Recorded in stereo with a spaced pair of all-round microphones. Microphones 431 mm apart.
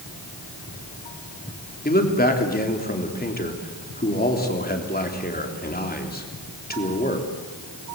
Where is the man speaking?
20° left (ahead or behind), 3.5 m.